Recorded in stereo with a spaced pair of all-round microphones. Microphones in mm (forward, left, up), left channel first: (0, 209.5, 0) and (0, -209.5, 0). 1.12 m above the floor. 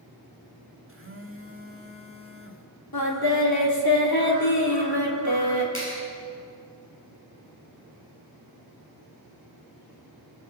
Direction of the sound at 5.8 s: 30° left (ahead or behind).